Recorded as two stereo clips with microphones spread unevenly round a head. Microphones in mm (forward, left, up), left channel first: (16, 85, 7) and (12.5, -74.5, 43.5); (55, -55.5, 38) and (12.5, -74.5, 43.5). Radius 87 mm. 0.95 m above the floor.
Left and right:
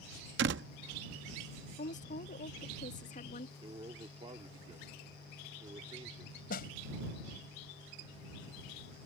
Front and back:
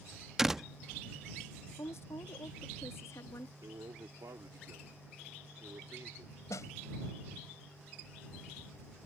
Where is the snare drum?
55° left.